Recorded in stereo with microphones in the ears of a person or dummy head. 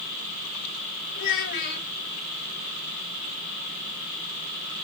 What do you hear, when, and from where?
1.1 s a child speaking: 65° left (ahead or behind), 3.5 m